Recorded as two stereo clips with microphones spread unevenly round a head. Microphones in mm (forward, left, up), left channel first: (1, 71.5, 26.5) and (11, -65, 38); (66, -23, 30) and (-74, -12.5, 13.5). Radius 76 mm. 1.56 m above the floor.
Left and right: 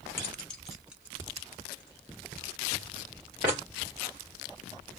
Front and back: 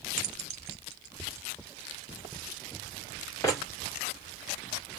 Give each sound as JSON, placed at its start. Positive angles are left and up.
{"t": 0.2, "sound": "keys jangling", "azimuth_deg": 170, "distance_m": 0.9}